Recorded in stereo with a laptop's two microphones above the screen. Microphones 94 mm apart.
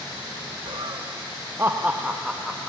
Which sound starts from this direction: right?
Laughter, at 0.7 s.